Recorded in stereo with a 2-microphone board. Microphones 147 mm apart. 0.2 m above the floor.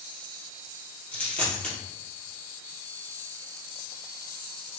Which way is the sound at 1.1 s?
10° left (ahead or behind).